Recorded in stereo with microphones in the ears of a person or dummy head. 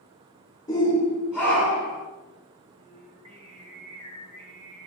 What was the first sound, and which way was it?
A shout, 20° left (ahead or behind).